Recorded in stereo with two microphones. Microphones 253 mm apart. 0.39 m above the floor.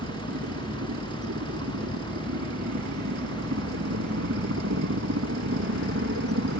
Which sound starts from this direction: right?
A helicopter, at 0.0 s.